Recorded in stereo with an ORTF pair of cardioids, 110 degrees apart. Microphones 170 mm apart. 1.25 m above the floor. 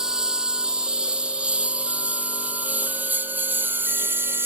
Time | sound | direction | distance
0.0 | a lawn mower | 5° right | ?